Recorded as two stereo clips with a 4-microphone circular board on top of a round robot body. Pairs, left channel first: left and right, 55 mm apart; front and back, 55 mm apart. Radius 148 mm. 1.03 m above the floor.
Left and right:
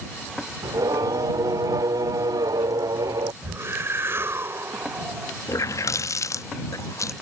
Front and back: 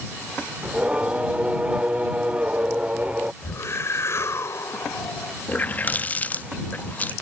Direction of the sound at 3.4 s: 40° right.